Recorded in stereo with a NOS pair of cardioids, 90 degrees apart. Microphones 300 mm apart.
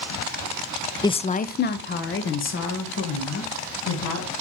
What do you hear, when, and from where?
1.0 s a woman speaking: 10° left, 0.5 m; by 4.3 s 50° left, 3 m